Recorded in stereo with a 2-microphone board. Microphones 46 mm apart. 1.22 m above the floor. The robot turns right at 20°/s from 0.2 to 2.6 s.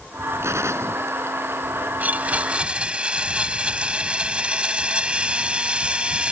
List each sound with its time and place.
0.4 s a gunshot: 75° right (ahead or behind); by 1.9 s 65° right (ahead or behind)
2.0 s a blender: 35° right (ahead or behind); by 6.3 s 20° right (ahead or behind)